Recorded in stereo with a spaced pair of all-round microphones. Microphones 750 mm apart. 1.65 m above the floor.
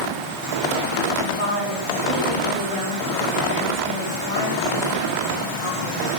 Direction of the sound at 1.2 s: 45° left (ahead or behind).